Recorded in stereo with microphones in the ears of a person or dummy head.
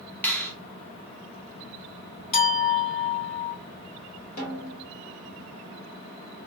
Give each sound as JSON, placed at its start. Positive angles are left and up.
{"t": 0.2, "sound": "a finger snap", "side_deg": 10, "distance_m": 0.6}
{"t": 2.3, "sound": "a clink", "side_deg": 45, "distance_m": 2.5}
{"t": 4.4, "sound": "a snare drum", "side_deg": 55, "distance_m": 2.5}